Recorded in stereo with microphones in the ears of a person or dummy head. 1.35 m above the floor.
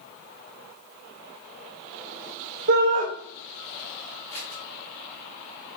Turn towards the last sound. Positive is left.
turn(degrees=10)  # may be behind; listen again after turning